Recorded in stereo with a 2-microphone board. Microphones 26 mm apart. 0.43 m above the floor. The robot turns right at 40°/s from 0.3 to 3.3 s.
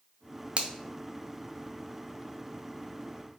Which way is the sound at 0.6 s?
45° right (ahead or behind).